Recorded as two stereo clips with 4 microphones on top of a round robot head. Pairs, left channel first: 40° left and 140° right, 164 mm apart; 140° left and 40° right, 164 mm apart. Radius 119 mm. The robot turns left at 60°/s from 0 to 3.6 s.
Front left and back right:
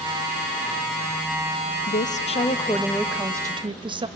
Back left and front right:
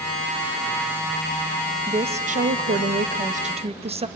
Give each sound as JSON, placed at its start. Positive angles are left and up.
{"t": 1.9, "sound": "a woman speaking", "azimuth_deg": 20, "distance_m": 1.0}